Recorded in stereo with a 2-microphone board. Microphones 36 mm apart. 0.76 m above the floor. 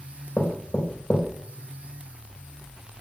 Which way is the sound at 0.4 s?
40° left (ahead or behind).